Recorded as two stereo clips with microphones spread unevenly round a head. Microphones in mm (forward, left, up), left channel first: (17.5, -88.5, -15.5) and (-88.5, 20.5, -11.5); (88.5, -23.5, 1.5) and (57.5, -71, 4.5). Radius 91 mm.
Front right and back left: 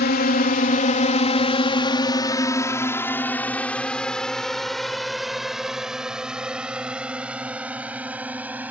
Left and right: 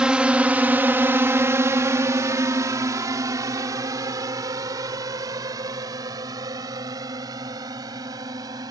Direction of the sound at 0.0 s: 50° right.